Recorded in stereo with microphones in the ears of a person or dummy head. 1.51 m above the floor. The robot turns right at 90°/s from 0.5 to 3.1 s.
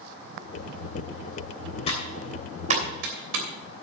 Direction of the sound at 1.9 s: 35° left (ahead or behind).